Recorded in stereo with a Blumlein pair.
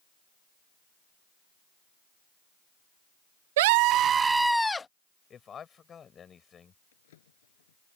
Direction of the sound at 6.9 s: 60° left.